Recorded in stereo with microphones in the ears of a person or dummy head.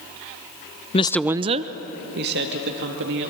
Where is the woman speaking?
30° left (ahead or behind), 0.5 m; by 3.3 s 60° right (ahead or behind), 2.5 m.